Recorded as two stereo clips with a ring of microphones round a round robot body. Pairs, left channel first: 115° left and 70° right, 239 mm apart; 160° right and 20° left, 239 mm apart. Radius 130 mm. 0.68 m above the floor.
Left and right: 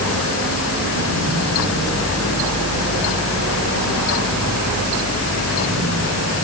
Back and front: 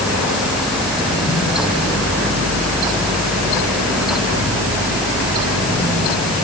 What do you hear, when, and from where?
Only background noise.